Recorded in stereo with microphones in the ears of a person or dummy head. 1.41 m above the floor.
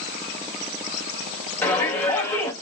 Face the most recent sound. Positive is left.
turn(degrees=5)  # may be behind; listen again after turning